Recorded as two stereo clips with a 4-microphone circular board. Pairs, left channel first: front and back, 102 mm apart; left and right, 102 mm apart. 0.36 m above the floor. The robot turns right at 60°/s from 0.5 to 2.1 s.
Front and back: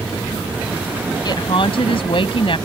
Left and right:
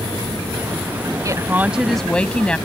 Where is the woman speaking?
40° right; by 2.6 s 10° left.